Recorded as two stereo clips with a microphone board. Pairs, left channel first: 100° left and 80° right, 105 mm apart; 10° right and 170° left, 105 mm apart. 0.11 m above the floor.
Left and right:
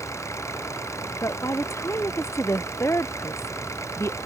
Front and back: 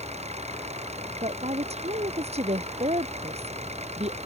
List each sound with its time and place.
0.0 s an engine running: 165° left
1.2 s a woman speaking: 165° left